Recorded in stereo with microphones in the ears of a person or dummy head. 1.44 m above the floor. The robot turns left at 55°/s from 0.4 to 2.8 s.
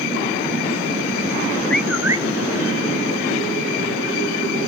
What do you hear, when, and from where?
1.7 s a bird: 5° left, 0.6 m; by 2.2 s 25° right, 0.6 m